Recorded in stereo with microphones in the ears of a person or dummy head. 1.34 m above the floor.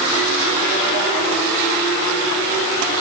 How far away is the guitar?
No guitar in this recording.